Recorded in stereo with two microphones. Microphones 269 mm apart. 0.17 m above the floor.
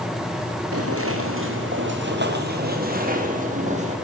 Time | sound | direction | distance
0.7 | footsteps | 60° right (ahead or behind) | 4.5 m